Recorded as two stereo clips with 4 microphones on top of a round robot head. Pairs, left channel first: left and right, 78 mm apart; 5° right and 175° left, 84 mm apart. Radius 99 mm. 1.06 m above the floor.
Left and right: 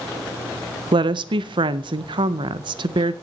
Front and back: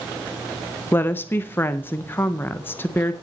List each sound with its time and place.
0.9 s a woman speaking: 70° right, 0.6 m